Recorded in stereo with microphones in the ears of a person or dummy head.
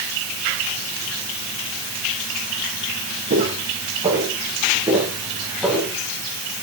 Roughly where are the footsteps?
Right.